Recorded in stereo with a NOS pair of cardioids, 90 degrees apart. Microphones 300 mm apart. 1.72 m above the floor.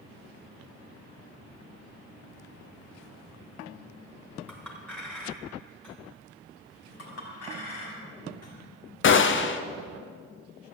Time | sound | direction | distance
4.5 | a clink | 5° left | 3.5 m
7.0 | a clink | 60° left | 4.5 m
9.0 | a gunshot | 40° left | 0.9 m